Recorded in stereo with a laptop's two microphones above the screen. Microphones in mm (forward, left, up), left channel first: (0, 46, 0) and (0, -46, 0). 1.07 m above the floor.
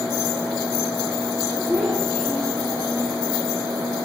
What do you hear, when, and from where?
1.7 s a child speaking: 5° left (ahead or behind), 6.5 m